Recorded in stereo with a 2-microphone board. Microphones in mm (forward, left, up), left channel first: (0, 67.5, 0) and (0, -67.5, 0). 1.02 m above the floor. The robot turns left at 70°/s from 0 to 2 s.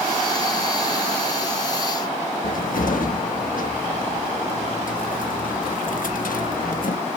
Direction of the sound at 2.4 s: 85° left.